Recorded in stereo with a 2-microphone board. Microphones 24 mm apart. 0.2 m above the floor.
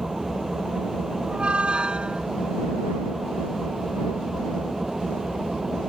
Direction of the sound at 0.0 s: 15° right (ahead or behind).